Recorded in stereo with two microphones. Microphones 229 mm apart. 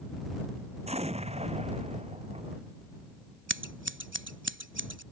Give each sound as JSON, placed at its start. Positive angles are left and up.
{"t": 0.9, "sound": "an explosion", "side_deg": -30}
{"t": 3.5, "sound": "scissors", "side_deg": -55}